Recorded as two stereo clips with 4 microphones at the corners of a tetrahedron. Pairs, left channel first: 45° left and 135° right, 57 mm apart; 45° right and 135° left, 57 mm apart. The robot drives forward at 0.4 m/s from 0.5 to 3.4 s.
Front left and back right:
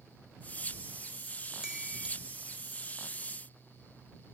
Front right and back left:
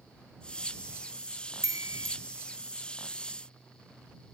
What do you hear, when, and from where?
1.6 s a chime: 150° left